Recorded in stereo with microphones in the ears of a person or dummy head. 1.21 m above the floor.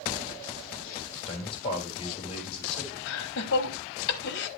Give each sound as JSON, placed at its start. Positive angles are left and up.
{"t": 1.3, "sound": "a man speaking", "side_deg": 35, "distance_m": 5.0}
{"t": 3.1, "sound": "laughter", "side_deg": 60, "distance_m": 1.2}